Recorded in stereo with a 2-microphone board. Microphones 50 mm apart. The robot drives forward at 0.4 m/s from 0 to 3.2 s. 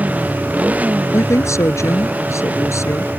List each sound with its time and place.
0.0 s a motorcycle: 30° right (ahead or behind)
1.1 s a woman speaking: 75° left (ahead or behind); by 3.1 s 70° left (ahead or behind)